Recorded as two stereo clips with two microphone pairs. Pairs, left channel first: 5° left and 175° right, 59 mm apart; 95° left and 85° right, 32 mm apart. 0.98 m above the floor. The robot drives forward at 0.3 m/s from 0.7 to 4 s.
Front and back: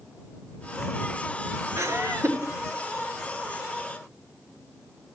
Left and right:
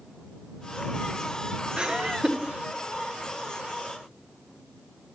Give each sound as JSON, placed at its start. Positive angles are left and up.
{"t": 1.8, "sound": "laughter", "azimuth_deg": -140, "distance_m": 1.0}